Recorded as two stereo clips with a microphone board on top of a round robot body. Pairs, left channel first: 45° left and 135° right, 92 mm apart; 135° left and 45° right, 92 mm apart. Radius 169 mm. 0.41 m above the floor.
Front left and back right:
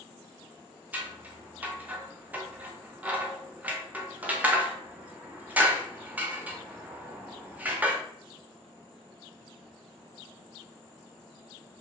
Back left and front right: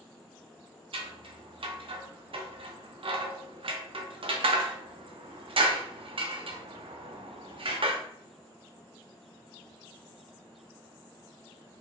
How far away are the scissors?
About 0.8 m.